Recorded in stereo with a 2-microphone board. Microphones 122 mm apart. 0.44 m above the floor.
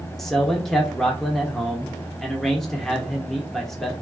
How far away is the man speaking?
About 0.8 m.